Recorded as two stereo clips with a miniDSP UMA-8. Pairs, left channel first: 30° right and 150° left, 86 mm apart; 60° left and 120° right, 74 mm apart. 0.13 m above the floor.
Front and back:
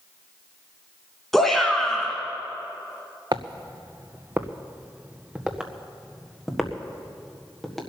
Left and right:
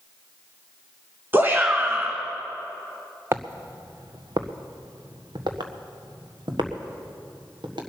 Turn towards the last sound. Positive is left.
turn(degrees=-120)